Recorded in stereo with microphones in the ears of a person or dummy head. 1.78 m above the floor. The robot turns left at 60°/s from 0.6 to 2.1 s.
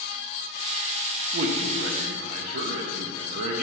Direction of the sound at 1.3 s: 75° right.